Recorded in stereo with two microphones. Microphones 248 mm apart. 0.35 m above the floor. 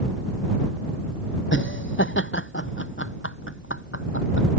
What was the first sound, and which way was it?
Laughter, 50° left (ahead or behind).